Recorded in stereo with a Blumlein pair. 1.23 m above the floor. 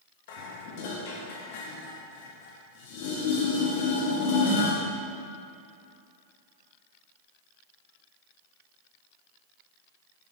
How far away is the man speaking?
No man speaking in this recording.